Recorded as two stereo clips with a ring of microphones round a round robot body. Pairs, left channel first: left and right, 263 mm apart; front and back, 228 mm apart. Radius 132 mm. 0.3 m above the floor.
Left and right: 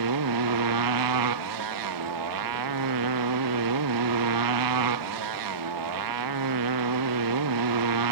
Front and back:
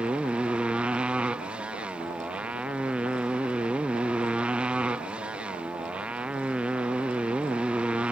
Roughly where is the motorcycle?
Right.